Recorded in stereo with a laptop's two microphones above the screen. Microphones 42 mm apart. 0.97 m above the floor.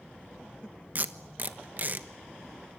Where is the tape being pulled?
40° right (ahead or behind), 1.1 m.